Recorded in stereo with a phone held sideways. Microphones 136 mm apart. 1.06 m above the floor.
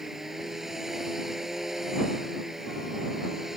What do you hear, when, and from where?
0.0 s a machine running: 5° right (ahead or behind)